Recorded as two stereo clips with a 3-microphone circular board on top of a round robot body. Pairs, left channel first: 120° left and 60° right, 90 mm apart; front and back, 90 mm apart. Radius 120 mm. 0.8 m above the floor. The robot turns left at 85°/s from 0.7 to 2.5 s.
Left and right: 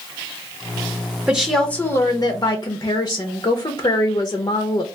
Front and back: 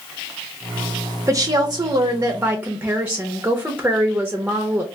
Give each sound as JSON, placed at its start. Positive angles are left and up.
{"t": 1.3, "sound": "a woman speaking", "azimuth_deg": -140, "distance_m": 0.8}